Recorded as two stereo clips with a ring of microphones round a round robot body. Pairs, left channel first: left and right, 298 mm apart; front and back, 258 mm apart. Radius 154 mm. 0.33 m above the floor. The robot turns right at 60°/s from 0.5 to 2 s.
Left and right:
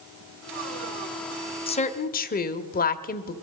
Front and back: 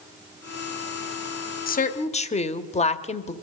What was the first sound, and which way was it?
A woman speaking, 30° left.